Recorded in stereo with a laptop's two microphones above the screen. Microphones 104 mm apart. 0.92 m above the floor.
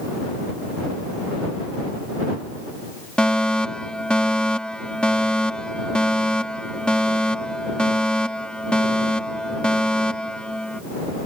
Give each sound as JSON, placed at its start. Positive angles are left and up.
{"t": 3.2, "sound": "a fire alarm", "side_deg": 10}